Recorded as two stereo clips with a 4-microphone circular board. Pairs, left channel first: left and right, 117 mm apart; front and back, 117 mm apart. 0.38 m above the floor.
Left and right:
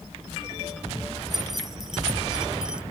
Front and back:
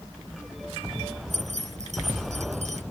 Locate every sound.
1.3 s keys jangling: straight behind; by 2.8 s 170° right